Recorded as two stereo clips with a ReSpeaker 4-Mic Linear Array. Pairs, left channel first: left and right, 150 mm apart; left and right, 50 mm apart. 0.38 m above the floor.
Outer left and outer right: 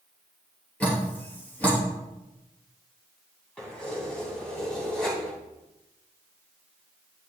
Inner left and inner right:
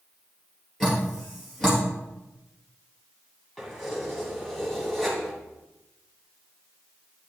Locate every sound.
0.8 s dripping: 10° left (ahead or behind), 3.5 m
3.6 s keys jangling: 5° left (ahead or behind), 2.5 m